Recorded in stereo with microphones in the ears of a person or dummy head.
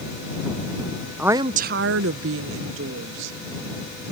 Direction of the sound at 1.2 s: Centre (ahead or behind).